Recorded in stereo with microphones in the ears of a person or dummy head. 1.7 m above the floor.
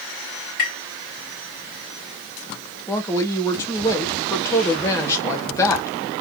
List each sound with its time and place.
0.6 s tapping: 50° left (ahead or behind), 2.5 m
2.9 s a woman speaking: 25° left (ahead or behind), 1.2 m